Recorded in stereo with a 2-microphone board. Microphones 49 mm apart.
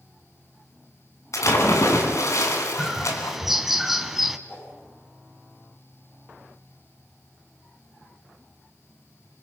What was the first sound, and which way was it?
A splash, 75° left (ahead or behind).